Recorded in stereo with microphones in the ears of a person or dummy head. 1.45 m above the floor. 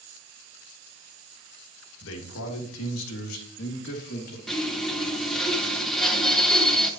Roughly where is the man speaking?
Left.